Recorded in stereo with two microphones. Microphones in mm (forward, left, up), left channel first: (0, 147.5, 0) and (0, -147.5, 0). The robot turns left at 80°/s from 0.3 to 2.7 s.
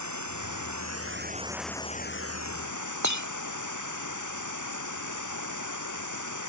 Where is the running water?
75° right; by 6.5 s 95° left.